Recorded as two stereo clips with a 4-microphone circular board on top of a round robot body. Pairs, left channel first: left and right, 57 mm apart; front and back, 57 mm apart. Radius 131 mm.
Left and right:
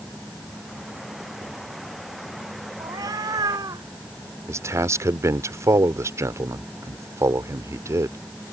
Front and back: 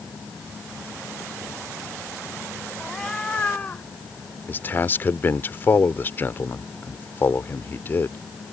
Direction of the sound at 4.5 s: 55° right.